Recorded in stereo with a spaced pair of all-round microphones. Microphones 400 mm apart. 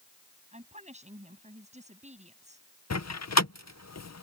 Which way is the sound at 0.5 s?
15° right (ahead or behind).